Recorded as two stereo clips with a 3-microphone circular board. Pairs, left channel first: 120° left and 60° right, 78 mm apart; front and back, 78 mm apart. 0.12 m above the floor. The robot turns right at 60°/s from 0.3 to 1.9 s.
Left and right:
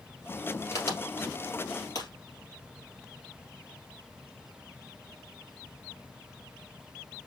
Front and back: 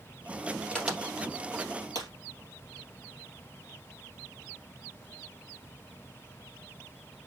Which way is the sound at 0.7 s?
75° left.